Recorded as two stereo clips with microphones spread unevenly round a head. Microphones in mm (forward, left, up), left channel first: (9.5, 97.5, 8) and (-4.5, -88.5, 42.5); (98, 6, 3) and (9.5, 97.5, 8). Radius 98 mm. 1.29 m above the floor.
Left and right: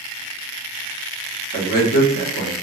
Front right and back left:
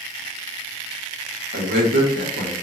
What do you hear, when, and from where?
1.5 s a man speaking: 130° left, 1.5 m